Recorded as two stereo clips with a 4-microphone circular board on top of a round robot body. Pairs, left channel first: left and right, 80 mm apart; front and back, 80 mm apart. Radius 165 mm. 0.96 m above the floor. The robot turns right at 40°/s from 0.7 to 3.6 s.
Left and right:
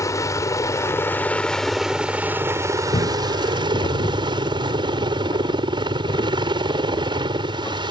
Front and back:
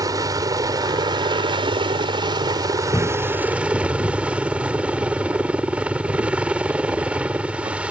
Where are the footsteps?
65° left; by 7.9 s 140° left.